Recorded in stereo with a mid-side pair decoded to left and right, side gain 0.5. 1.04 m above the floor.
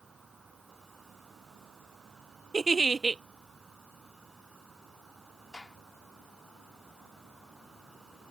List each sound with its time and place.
0.0 s an insect: 15° right
2.5 s a giggle: 25° right
5.5 s a gunshot: 20° left